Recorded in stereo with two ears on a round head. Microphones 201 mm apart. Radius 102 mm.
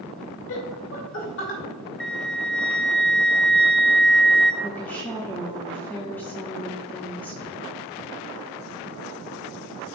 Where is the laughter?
60° left (ahead or behind), 2 m; by 1.6 s 50° left (ahead or behind), 2.5 m.